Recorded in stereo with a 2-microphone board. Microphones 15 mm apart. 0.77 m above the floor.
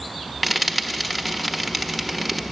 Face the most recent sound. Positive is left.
turn(degrees=0)  # may be behind; listen again after turning